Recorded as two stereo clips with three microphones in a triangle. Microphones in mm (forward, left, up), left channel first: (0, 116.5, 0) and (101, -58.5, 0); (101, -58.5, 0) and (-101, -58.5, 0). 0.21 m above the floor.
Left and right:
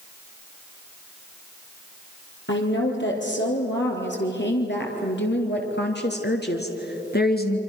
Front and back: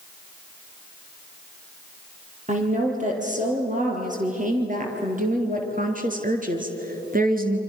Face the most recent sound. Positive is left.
turn(degrees=145)